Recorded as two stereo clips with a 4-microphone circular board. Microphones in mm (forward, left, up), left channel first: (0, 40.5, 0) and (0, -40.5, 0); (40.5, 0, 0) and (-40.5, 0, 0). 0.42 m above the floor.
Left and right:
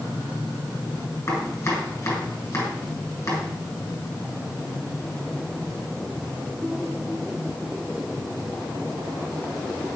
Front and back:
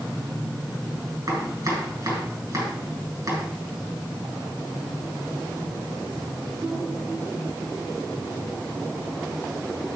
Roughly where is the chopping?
Behind left.